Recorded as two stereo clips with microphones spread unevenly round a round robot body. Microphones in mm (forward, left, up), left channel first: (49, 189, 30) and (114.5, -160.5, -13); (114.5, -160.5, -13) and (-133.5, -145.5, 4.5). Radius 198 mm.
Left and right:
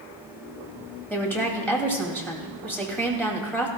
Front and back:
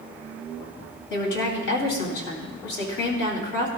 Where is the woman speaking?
15° left, 2.5 m.